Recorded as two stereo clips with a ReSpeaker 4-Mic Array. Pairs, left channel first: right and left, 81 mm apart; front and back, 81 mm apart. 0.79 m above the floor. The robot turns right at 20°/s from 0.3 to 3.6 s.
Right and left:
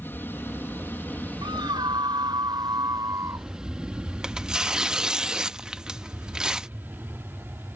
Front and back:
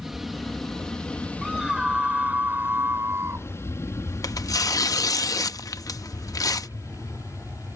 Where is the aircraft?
95° right; by 7.8 s 35° left.